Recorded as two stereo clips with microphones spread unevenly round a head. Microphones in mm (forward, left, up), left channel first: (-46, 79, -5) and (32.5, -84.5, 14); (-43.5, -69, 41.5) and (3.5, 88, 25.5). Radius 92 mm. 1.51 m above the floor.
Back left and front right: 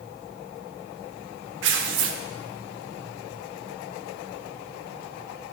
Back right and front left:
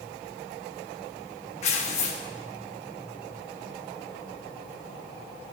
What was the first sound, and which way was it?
Tearing paper, 55° right.